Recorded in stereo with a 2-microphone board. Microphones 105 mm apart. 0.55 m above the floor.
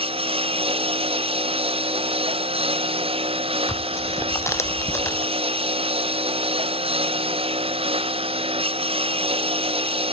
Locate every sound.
0.0 s a lawn mower: 60° right (ahead or behind)
3.7 s tearing paper: 25° left (ahead or behind)